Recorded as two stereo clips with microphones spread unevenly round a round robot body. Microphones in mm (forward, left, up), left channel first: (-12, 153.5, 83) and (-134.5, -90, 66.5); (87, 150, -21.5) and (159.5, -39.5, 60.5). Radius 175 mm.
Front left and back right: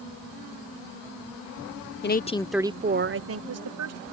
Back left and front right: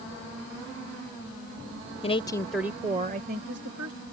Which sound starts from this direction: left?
A woman speaking, at 2.0 s.